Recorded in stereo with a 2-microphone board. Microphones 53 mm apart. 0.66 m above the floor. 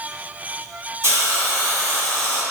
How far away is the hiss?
About 1.3 m.